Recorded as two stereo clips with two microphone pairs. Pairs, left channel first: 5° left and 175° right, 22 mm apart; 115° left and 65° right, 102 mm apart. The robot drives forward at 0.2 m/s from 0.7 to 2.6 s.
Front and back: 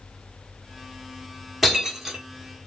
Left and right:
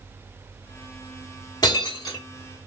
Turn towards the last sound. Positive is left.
turn(degrees=130)